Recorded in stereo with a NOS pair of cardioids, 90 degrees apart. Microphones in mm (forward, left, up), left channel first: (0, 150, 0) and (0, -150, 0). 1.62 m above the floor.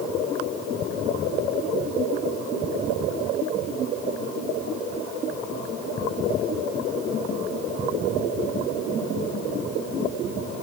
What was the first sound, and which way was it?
Only background noise.